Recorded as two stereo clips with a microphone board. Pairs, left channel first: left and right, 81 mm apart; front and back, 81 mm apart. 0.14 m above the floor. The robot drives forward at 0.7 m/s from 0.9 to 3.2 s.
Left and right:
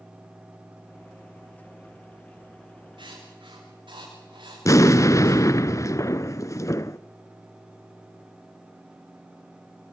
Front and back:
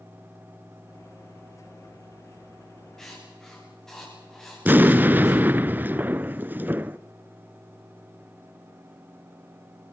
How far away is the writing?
About 10 m.